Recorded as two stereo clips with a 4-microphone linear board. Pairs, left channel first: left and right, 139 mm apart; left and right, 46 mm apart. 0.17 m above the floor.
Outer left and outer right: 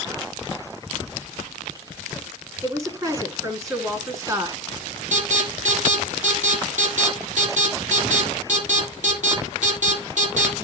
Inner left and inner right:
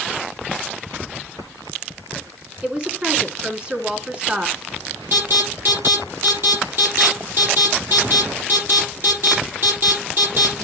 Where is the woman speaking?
20° right (ahead or behind), 1.8 m.